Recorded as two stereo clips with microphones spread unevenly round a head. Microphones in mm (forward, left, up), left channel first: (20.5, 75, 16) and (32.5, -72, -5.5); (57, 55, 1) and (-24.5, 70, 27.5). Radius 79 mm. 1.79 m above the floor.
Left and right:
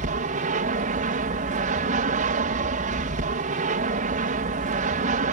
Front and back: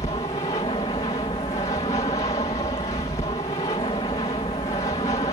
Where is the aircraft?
55° right.